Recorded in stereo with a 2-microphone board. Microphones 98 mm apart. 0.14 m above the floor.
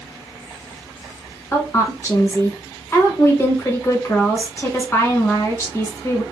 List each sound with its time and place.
1.5 s a woman speaking: 30° left (ahead or behind), 1.1 m